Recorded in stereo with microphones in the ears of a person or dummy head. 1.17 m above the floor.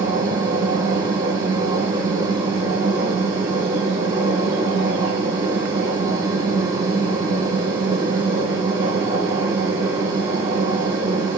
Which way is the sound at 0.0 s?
20° right (ahead or behind).